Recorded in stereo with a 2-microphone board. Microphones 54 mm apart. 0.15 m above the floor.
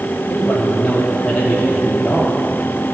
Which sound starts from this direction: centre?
A man speaking, at 0.3 s.